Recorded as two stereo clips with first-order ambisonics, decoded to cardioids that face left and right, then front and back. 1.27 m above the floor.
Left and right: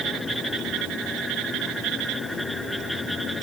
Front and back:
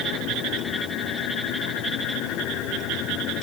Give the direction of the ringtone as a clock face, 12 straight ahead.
I don't hear a ringtone.